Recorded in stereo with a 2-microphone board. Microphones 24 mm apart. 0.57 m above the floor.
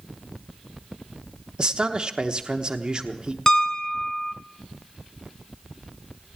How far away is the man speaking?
About 1.0 m.